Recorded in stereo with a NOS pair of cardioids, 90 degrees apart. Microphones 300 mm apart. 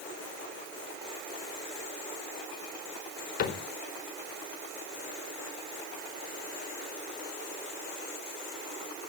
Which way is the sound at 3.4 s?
65° left.